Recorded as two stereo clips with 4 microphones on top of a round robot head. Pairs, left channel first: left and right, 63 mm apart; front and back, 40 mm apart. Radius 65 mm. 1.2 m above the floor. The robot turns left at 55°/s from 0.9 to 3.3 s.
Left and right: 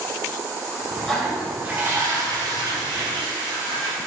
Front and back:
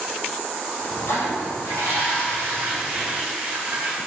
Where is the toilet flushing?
5° left, 2.5 m; by 4.0 s 115° right, 2.5 m.